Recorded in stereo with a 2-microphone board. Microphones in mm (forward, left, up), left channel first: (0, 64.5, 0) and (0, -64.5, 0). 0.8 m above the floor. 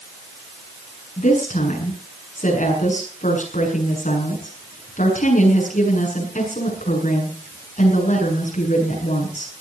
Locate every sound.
1.2 s a woman speaking: 75° left (ahead or behind), 7.5 m